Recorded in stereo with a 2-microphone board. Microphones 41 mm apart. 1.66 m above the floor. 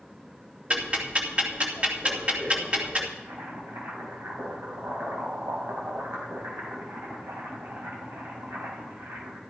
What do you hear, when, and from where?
0.7 s ticking: 30° right (ahead or behind), 2.5 m
3.2 s boiling: 75° right (ahead or behind), 4.5 m